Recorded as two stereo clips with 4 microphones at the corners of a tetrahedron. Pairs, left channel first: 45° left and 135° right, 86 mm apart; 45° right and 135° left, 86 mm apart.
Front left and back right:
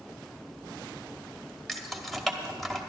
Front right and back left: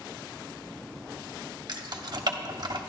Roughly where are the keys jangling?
Behind left.